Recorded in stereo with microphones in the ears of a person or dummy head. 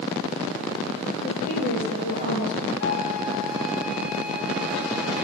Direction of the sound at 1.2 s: 75° left (ahead or behind).